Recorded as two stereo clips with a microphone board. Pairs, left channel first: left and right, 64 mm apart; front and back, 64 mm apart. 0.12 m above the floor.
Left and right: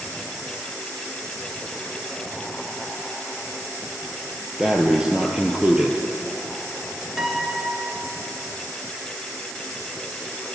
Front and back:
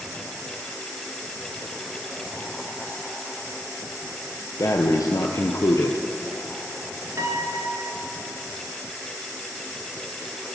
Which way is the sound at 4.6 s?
15° right.